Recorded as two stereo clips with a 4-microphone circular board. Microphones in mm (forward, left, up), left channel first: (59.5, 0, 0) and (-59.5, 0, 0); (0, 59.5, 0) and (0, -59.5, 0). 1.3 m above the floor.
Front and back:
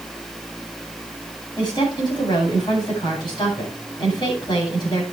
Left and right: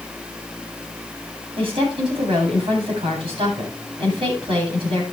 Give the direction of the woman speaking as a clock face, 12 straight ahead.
2 o'clock.